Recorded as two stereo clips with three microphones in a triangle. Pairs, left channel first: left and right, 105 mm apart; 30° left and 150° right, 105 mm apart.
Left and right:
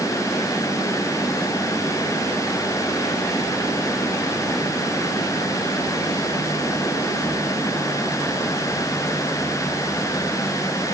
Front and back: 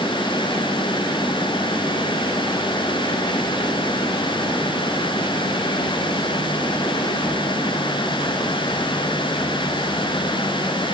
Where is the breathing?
No breathing in this recording.